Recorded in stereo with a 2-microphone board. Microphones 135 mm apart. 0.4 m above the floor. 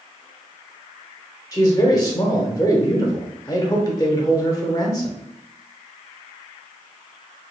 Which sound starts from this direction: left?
A man speaking, at 1.5 s.